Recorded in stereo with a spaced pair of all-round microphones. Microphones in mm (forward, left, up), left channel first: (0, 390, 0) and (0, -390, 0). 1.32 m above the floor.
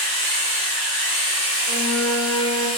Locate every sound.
0.0 s a machine running: 60° left (ahead or behind), 2.5 m
1.7 s a flute: 35° left (ahead or behind), 1.3 m